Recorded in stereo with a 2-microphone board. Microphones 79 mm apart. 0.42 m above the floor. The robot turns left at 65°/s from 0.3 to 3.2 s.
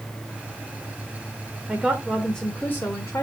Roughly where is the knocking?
I don't hear knocking.